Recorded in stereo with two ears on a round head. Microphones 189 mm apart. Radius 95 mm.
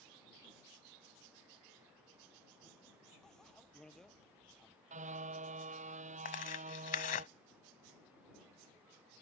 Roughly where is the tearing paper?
Left.